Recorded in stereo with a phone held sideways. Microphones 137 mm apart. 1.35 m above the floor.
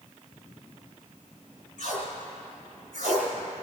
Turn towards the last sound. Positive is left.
turn(degrees=85)